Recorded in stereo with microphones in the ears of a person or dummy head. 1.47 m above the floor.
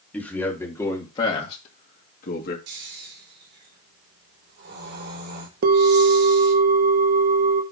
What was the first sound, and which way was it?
A man speaking, 5° left (ahead or behind).